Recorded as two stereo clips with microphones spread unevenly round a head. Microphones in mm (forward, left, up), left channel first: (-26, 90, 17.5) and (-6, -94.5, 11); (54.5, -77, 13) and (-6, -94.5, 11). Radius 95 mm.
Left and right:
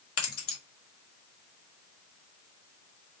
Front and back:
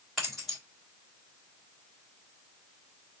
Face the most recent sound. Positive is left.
turn(degrees=105)